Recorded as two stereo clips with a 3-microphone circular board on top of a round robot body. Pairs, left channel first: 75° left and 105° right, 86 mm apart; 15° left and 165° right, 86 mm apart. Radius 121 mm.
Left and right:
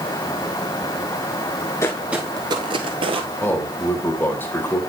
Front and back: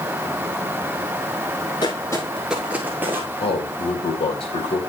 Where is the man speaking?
10° left, 3.5 m.